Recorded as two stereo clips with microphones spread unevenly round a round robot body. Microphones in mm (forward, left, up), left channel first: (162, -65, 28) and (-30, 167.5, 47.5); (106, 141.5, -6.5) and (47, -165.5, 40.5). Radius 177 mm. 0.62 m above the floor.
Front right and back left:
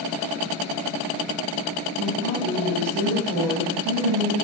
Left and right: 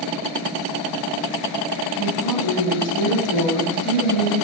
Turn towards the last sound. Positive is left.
turn(degrees=115)